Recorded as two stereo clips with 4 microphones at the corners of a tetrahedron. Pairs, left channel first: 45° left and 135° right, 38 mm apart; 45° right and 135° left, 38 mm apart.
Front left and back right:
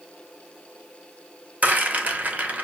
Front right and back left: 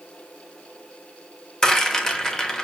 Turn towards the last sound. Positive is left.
turn(degrees=-110)